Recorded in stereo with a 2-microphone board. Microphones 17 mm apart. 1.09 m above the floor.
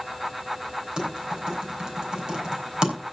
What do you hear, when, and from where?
1.0 s typing on a keyboard: 50° right (ahead or behind), 4.5 m